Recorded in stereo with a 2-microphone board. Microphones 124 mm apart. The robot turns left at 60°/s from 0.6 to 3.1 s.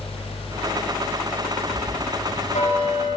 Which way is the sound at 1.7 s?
120° left.